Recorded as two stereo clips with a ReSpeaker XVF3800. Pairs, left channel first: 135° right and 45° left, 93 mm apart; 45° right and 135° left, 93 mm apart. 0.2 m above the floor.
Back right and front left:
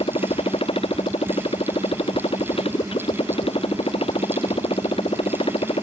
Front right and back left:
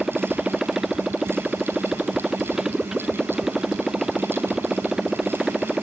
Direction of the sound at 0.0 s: 140° right.